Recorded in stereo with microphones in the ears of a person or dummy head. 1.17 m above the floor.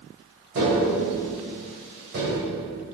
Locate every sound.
0.6 s tapping: 60° right (ahead or behind), 2 m